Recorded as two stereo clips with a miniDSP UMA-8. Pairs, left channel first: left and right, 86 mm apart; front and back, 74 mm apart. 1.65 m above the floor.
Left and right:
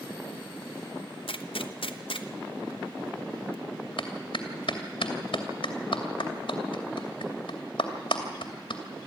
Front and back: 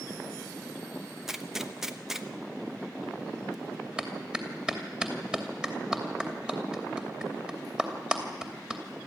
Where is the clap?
105° left, 2.5 m.